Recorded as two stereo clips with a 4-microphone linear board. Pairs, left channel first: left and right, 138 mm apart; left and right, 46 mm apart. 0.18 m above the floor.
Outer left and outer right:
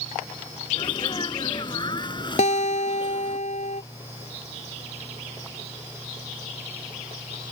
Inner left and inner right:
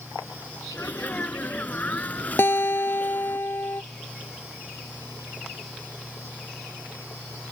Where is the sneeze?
35° left (ahead or behind).